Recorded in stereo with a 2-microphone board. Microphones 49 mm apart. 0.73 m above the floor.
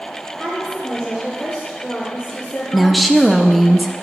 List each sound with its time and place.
0.4 s a woman speaking: centre (ahead or behind), 3 m; by 3.7 s 75° left (ahead or behind), 2.5 m
2.7 s a woman speaking: centre (ahead or behind), 0.6 m